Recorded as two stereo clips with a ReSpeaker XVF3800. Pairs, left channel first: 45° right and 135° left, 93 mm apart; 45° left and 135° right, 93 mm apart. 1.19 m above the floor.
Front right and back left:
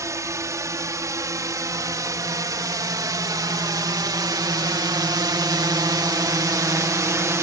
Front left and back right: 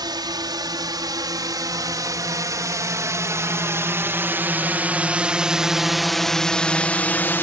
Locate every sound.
0.0 s a drone: 170° right; by 7.4 s 100° left